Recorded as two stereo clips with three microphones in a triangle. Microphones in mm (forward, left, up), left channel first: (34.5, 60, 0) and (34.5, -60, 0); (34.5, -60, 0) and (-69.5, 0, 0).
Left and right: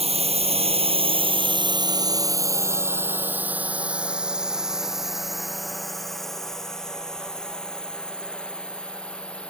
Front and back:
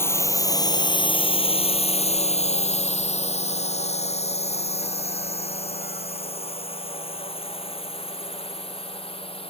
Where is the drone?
95° right; by 9.5 s 10° left.